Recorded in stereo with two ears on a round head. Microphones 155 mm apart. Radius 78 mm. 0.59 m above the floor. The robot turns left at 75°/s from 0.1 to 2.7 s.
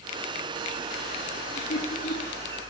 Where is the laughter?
25° left (ahead or behind), 7.5 m; by 2.4 s 80° left, 7.5 m.